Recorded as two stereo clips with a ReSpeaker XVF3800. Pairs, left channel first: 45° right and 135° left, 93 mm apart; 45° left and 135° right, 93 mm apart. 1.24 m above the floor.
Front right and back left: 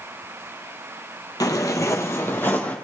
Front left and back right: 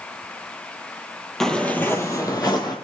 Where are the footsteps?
40° right, 1.6 m; by 2.8 s 25° left, 2 m.